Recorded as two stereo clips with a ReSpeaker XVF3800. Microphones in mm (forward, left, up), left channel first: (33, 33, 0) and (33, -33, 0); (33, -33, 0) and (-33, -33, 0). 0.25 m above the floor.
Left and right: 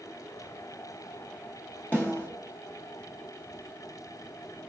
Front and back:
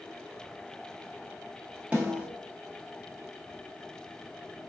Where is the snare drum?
130° left, 1.6 m.